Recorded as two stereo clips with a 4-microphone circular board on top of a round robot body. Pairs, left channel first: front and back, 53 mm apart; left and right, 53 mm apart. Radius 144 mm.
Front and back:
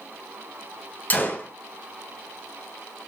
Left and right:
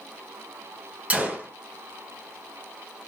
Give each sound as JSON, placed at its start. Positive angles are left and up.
{"t": 1.1, "sound": "a gunshot", "azimuth_deg": -40, "distance_m": 1.4}